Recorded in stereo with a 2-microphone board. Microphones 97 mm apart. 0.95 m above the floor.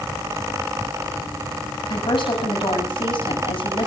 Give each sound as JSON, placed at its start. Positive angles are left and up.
{"t": 1.9, "sound": "a woman speaking", "side_deg": 60, "distance_m": 7.5}